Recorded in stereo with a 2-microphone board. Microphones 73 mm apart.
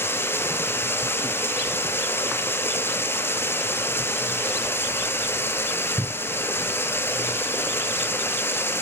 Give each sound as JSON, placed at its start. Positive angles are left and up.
{"t": 0.0, "sound": "running water", "side_deg": 30, "distance_m": 0.8}